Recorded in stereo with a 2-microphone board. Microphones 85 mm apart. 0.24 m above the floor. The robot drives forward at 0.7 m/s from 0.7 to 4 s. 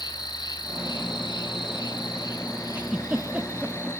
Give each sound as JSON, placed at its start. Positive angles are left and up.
{"t": 0.0, "sound": "an insect", "side_deg": 60, "distance_m": 1.5}
{"t": 2.8, "sound": "a giggle", "side_deg": -15, "distance_m": 1.0}